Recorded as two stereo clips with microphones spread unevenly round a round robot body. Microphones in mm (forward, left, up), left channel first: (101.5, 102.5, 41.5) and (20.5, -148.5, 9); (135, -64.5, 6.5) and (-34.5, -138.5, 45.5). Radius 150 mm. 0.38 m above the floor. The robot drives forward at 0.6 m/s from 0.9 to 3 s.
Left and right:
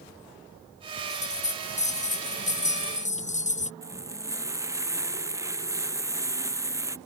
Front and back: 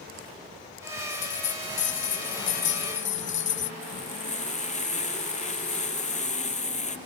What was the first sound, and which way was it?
A bell, 10° left.